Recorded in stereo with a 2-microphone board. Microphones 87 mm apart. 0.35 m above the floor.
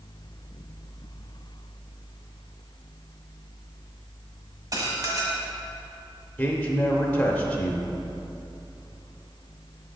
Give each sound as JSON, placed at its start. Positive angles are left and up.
{"t": 4.7, "sound": "dishes clattering", "side_deg": -40, "distance_m": 1.3}
{"t": 6.4, "sound": "a man speaking", "side_deg": 15, "distance_m": 0.9}